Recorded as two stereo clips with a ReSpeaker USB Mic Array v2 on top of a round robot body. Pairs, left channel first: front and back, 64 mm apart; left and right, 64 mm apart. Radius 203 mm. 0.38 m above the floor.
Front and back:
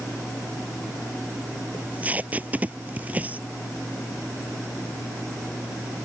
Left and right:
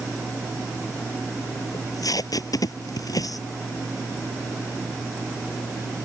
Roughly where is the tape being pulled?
Behind left.